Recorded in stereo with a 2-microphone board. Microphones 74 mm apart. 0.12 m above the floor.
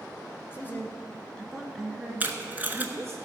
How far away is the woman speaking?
About 1.7 m.